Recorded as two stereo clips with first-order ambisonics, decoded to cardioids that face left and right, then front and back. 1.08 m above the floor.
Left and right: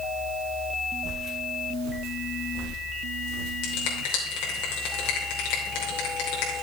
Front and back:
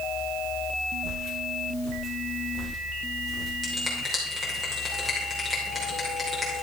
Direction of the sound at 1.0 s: 150° right.